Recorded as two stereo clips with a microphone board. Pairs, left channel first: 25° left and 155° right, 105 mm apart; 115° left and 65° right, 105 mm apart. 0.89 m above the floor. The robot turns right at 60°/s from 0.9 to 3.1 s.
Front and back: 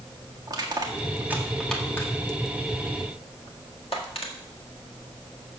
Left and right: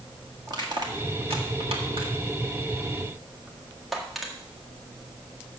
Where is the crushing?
110° right, 1.7 m; by 4.3 s 25° left, 1.7 m.